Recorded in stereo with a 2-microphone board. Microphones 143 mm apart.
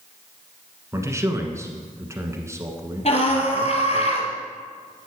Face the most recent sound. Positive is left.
turn(degrees=50)  # may be behind; listen again after turning